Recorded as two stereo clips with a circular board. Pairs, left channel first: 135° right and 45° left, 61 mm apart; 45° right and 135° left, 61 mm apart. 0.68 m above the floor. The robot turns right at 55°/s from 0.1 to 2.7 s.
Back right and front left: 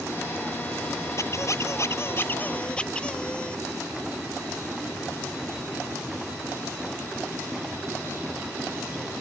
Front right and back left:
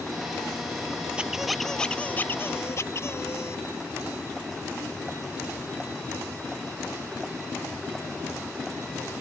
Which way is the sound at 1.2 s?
150° right.